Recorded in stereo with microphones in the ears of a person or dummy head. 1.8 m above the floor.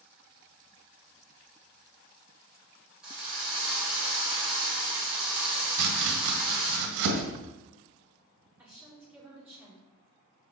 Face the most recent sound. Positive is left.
turn(degrees=-10)  # may be behind; listen again after turning